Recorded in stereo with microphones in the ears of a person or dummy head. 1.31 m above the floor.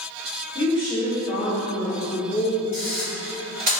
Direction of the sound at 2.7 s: 45° right (ahead or behind).